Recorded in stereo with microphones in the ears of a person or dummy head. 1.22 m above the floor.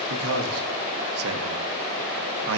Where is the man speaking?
75° right (ahead or behind), 0.9 m.